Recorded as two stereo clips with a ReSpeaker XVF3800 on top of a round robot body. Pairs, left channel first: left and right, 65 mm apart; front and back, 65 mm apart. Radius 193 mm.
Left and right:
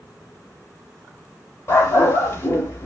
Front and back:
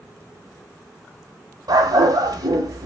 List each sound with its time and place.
1.7 s a dog barking: 150° left, 0.5 m